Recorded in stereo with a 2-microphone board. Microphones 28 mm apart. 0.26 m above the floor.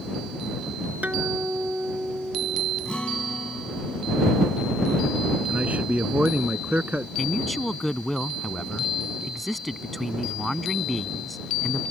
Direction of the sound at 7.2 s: 5° left (ahead or behind).